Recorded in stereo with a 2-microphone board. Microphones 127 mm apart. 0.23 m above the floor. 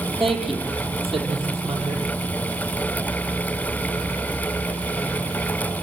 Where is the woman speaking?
Centre (ahead or behind), 6.5 m.